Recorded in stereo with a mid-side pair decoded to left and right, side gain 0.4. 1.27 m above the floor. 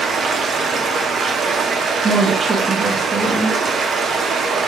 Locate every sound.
0.0 s running water: 65° right, 0.8 m
2.0 s a woman speaking: 45° right, 0.6 m